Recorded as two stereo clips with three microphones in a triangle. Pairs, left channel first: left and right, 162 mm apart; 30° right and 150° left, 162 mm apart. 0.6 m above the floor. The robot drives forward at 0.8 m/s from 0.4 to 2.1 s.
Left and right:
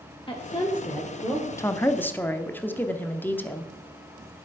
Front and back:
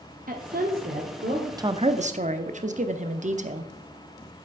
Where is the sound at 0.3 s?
145° left, 1.3 m; by 1.5 s 160° left, 2.0 m.